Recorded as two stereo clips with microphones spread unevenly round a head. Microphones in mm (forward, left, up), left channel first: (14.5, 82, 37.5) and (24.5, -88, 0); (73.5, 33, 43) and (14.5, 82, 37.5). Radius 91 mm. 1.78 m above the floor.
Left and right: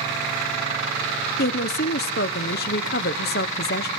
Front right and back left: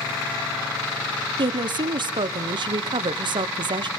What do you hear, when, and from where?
1.4 s a woman speaking: 120° left, 0.9 m